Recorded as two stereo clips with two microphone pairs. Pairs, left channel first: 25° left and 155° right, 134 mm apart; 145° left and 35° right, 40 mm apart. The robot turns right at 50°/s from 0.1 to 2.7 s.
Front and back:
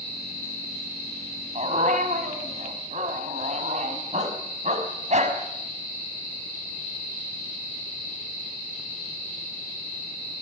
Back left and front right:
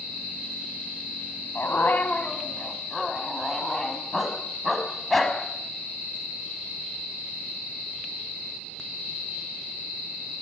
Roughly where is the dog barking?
Behind.